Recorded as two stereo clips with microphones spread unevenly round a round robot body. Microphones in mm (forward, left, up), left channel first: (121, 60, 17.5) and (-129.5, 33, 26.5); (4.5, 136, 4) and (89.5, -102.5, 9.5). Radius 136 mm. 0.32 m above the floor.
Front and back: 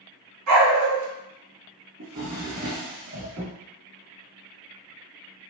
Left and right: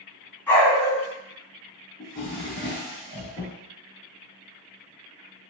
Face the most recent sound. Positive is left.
turn(degrees=160)